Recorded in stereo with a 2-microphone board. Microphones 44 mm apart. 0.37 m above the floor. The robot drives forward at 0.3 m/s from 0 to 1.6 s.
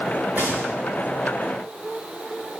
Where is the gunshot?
35° right (ahead or behind), 6 m.